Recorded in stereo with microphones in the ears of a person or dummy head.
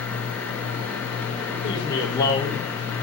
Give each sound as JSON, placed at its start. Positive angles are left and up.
{"t": 1.6, "sound": "a man speaking", "side_deg": 25, "distance_m": 4.0}